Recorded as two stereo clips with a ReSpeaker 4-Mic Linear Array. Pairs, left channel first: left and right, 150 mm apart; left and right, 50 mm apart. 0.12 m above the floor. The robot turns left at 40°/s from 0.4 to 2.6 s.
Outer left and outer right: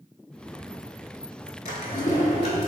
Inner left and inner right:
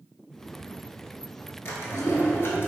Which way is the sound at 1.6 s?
95° left.